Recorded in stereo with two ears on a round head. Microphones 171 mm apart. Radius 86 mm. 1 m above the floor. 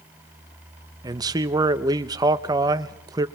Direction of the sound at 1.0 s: 20° right (ahead or behind).